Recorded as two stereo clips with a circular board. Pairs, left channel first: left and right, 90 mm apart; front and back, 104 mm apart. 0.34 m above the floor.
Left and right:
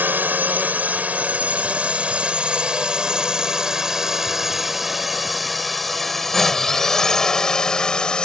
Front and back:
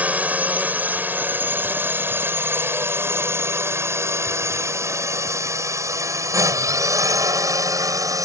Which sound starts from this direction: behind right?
A drone, at 0.0 s.